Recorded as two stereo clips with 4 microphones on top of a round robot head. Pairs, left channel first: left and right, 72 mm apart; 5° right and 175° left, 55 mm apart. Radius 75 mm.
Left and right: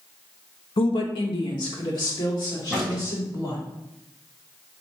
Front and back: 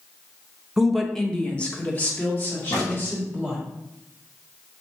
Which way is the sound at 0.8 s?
95° left.